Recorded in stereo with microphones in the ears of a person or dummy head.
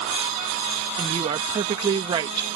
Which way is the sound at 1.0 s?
30° right (ahead or behind).